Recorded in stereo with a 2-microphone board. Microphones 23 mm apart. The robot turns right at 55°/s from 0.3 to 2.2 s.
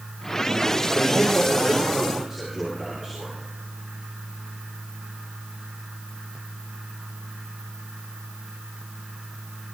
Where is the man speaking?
135° left, 9.5 m; by 3.4 s 155° right, 9.5 m.